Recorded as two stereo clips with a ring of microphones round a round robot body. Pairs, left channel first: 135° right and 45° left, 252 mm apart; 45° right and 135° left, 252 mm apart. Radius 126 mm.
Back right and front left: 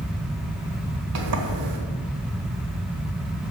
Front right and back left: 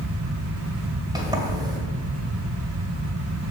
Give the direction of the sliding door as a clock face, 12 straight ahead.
10 o'clock.